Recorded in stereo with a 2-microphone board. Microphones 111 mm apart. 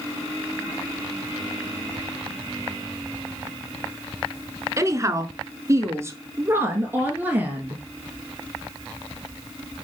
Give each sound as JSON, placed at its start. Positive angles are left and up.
{"t": 4.8, "sound": "a woman speaking", "side_deg": -30, "distance_m": 1.2}